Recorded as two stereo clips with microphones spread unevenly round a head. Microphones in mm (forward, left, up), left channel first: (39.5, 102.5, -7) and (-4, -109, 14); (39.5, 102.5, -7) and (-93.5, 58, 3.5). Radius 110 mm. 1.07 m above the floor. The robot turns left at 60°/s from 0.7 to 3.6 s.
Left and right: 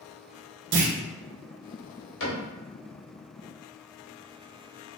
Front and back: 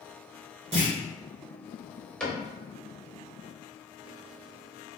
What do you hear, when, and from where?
0.7 s a clunk: 105° right, 0.8 m; by 0.9 s 120° right, 0.8 m
2.2 s a cupboard door: 105° left, 1.8 m; by 2.4 s 90° left, 1.8 m